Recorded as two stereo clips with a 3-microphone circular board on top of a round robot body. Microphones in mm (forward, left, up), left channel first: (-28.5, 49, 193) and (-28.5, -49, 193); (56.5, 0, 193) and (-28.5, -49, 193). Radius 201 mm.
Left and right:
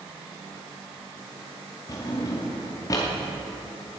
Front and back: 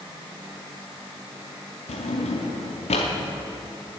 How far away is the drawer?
About 0.6 m.